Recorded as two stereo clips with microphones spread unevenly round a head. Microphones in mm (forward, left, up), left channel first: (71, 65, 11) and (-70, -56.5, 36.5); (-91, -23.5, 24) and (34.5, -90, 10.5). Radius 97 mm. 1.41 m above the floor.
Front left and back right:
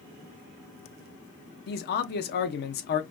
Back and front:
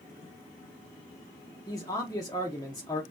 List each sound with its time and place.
1.7 s a man speaking: 80° left, 0.8 m